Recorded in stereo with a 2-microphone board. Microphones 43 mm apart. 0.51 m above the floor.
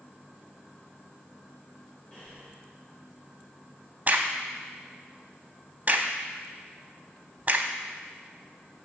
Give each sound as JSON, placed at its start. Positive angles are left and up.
{"t": 2.1, "sound": "breathing", "side_deg": 20, "distance_m": 2.0}
{"t": 4.1, "sound": "a crack", "side_deg": -40, "distance_m": 0.5}